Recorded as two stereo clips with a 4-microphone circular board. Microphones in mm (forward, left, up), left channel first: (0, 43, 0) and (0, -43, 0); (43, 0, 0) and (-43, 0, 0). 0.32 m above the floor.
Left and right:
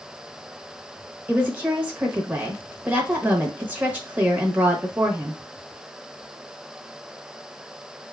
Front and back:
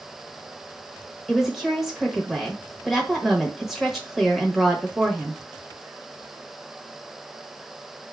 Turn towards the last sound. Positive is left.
turn(degrees=-90)